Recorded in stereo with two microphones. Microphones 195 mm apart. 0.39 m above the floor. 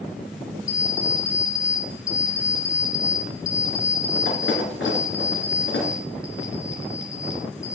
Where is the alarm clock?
85° left, 2 m.